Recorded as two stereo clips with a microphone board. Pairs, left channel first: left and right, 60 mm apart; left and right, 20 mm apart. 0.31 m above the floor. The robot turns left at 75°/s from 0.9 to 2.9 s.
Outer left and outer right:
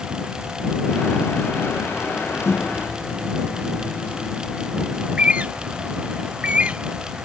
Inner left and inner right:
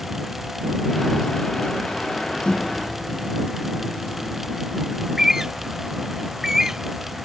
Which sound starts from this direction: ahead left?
A microwave, at 2.5 s.